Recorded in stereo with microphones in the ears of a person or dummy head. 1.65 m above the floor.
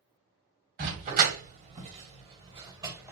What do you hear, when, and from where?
0.8 s a dog barking: 55° right (ahead or behind), 3 m; by 3.1 s 15° right (ahead or behind), 2 m